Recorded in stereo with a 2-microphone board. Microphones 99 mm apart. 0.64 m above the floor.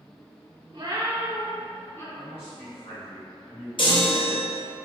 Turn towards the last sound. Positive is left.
turn(degrees=55)  # may be behind; listen again after turning